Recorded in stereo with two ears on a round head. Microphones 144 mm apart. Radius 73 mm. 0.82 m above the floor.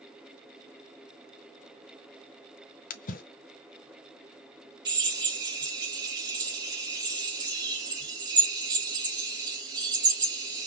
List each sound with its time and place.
2.9 s a splash: 55° left (ahead or behind), 0.7 m
4.8 s a drill: 25° right (ahead or behind), 2.5 m